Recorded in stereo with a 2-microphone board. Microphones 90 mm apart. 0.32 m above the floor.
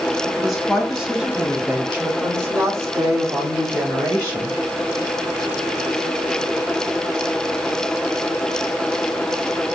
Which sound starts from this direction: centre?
A woman speaking, at 0.3 s.